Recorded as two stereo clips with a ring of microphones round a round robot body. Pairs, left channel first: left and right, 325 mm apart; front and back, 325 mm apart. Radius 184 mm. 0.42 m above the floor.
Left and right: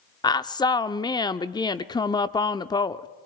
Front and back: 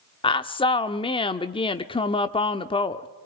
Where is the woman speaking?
40° left, 0.7 m.